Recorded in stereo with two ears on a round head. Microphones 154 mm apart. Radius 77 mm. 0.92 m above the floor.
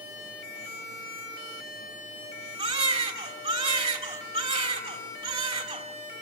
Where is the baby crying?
35° right (ahead or behind), 4 m.